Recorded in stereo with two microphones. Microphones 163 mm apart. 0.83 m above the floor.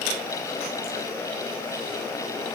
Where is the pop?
I don't hear a pop.